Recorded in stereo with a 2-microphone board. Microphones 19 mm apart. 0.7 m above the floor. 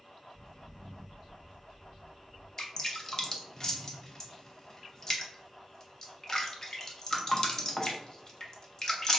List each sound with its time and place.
0.3 s footsteps: 10° left (ahead or behind), 1.4 m; by 2.5 s 55° left (ahead or behind), 1.7 m
2.6 s dripping: 30° left (ahead or behind), 0.5 m